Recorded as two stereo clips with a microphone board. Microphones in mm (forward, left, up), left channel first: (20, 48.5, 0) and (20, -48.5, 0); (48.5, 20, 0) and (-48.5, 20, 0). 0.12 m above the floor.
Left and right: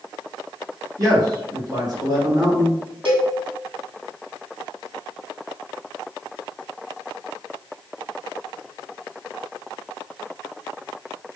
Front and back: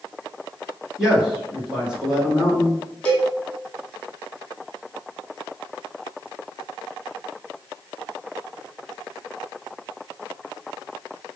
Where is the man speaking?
100° right, 1.8 m.